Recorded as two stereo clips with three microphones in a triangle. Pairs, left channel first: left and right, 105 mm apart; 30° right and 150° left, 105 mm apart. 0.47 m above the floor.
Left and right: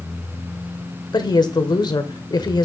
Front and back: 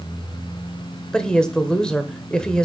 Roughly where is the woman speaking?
Ahead left.